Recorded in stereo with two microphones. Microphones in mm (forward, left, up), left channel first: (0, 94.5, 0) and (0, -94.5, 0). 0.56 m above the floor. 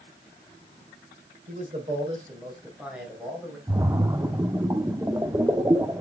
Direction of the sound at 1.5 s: 40° right (ahead or behind).